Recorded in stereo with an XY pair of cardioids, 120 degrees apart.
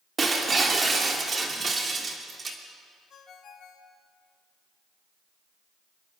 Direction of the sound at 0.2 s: 25° right.